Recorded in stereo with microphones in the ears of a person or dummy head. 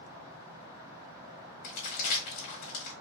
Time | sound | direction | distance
1.6 | crumpling | 40° left (ahead or behind) | 1.4 m